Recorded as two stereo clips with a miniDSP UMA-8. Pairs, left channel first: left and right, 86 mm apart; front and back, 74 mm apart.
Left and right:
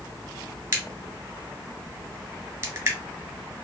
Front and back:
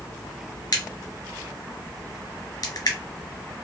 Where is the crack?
30° right, 1.7 m.